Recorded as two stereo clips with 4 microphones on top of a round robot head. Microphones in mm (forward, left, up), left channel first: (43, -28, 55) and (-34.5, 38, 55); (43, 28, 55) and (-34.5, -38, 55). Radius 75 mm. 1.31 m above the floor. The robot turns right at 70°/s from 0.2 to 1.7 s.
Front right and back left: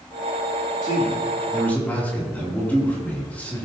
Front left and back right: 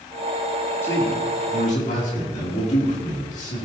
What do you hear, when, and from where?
0.8 s a man speaking: 25° right, 3 m; by 3.7 s 35° left, 3 m